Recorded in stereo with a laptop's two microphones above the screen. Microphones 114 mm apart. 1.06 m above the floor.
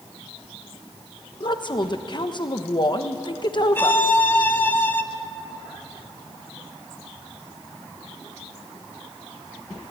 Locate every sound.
1.4 s a woman speaking: 45° left (ahead or behind), 1.1 m
3.8 s a violin: 20° left (ahead or behind), 0.8 m